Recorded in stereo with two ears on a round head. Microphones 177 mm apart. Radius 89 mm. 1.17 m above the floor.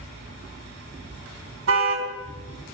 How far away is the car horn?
About 4 m.